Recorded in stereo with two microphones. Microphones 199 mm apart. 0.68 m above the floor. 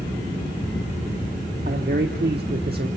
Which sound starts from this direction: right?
A man speaking, at 1.6 s.